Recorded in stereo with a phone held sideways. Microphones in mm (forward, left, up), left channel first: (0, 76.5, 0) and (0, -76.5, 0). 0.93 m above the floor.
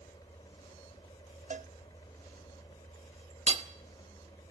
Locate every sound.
0.0 s a fan: 25° left (ahead or behind), 3 m
1.5 s a cowbell: 50° right (ahead or behind), 0.8 m
3.5 s hammering: 45° right (ahead or behind), 1.0 m